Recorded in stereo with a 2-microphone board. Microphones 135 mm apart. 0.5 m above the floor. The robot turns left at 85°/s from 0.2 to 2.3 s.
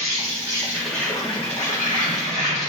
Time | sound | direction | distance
0.0 | an insect | 125° right | 0.9 m